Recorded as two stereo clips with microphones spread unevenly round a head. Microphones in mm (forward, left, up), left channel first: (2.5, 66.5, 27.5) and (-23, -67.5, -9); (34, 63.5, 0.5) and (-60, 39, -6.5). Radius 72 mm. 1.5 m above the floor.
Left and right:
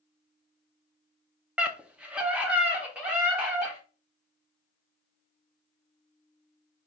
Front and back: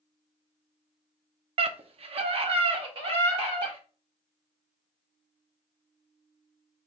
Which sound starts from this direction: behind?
A scream, at 1.6 s.